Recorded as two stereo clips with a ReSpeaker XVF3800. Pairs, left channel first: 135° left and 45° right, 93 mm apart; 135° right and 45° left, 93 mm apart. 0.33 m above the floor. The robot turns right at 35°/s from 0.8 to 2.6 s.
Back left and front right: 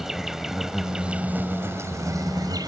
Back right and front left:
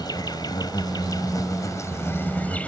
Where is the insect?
130° right; by 2.7 s 65° right.